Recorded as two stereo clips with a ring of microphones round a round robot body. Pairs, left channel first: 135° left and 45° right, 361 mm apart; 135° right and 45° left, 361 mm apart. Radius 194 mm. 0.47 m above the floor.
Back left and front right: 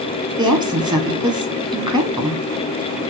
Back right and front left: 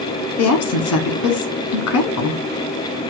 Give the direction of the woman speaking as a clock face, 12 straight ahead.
4 o'clock.